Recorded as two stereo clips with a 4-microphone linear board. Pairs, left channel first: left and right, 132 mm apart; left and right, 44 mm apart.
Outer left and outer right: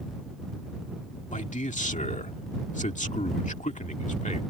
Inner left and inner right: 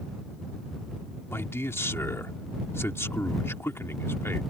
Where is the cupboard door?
No cupboard door in this recording.